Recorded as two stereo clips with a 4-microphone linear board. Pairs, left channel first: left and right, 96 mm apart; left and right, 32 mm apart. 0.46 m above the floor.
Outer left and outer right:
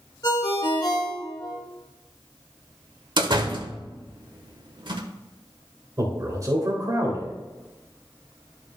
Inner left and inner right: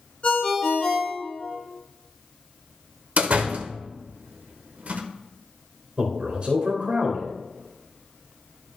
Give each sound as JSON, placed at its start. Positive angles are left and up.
{"t": 0.2, "sound": "a ringtone", "side_deg": 40, "distance_m": 3.0}
{"t": 3.2, "sound": "a door slam", "side_deg": -55, "distance_m": 1.0}
{"t": 6.0, "sound": "a man speaking", "side_deg": -40, "distance_m": 2.0}